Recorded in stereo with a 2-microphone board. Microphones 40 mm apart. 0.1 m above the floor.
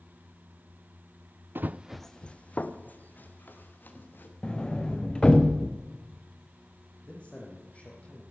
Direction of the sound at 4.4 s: 20° left (ahead or behind).